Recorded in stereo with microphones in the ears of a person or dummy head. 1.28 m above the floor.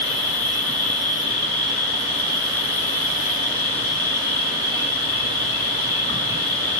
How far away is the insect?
About 3.5 m.